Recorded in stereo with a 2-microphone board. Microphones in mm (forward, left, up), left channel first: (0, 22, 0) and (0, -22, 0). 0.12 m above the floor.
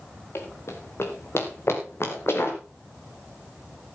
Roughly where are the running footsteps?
Left.